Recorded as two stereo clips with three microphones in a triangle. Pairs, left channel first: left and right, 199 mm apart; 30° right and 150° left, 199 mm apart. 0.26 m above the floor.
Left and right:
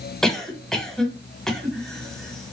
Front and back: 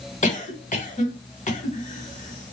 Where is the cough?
5° left, 1.3 m.